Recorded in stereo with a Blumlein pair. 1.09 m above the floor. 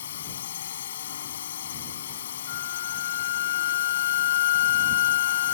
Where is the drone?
60° left.